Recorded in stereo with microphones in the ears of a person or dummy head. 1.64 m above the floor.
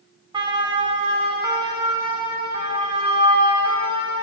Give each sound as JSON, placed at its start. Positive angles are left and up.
{"t": 0.3, "sound": "a siren", "side_deg": -30, "distance_m": 5.5}